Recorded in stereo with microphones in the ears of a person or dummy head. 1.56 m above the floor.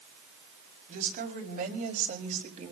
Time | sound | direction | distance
0.9 | a woman speaking | 45° right (ahead or behind) | 4.5 m